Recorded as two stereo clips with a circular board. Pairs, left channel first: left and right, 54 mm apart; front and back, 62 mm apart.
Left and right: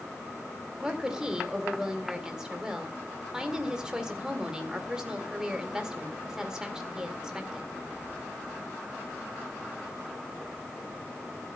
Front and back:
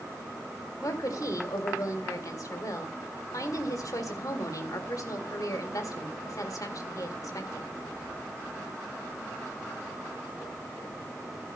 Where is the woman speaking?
10° right, 2 m.